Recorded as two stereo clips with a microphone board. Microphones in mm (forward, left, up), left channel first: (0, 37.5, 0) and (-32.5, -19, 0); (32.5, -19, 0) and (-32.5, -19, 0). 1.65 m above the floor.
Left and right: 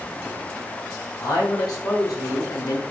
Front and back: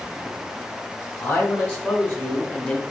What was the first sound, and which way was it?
A man speaking, 60° left.